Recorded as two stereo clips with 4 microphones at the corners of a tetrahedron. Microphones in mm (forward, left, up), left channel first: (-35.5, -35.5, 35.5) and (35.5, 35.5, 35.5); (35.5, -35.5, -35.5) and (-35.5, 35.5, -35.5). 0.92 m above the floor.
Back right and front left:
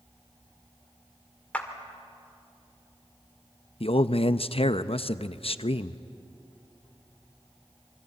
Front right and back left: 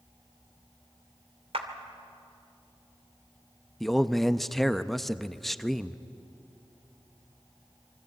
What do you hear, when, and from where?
1.5 s a clap: 150° left, 2 m
3.8 s a man speaking: 135° right, 0.7 m